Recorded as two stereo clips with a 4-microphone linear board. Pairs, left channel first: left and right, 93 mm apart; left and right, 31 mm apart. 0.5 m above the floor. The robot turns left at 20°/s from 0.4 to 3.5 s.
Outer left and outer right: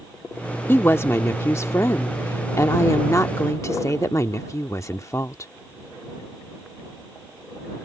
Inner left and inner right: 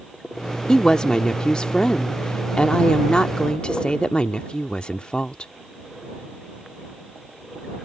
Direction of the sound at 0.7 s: 135° left.